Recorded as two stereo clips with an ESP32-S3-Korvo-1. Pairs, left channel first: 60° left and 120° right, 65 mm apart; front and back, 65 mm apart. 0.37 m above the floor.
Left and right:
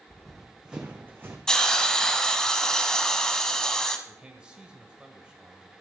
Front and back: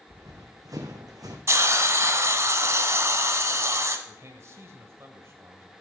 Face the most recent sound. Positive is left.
turn(degrees=175)